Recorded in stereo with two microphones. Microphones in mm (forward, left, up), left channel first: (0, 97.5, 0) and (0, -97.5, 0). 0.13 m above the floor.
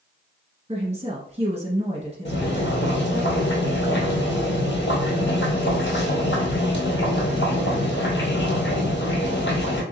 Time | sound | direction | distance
0.7 | a woman speaking | 35° right (ahead or behind) | 1.4 m
2.2 | boiling | 75° left (ahead or behind) | 1.3 m